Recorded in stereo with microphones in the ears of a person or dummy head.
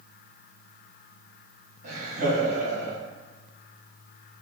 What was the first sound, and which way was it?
Laughter, 60° right (ahead or behind).